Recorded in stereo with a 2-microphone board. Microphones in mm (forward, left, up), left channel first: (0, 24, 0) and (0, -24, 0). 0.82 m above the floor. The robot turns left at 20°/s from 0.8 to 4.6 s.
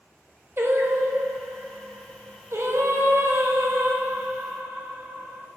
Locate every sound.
0.6 s singing: 60° right, 0.9 m; by 5.5 s 135° right, 0.9 m